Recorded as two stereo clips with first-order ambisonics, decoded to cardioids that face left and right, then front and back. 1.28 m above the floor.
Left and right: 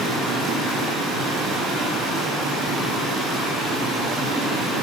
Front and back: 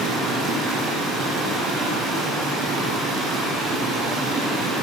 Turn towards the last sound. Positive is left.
turn(degrees=-120)